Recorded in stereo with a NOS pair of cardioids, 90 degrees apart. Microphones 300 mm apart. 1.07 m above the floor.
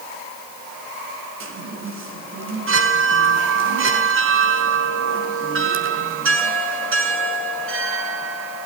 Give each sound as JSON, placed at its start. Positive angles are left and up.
{"t": 1.4, "sound": "a chime", "azimuth_deg": -45, "distance_m": 6.0}